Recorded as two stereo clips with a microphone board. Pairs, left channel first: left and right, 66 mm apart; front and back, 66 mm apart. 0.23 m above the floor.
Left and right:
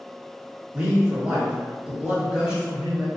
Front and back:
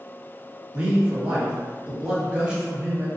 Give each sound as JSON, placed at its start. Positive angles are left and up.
{"t": 0.7, "sound": "a man speaking", "azimuth_deg": -135, "distance_m": 1.5}